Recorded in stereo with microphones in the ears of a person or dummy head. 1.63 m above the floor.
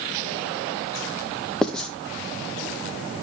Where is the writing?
Centre (ahead or behind), 0.8 m.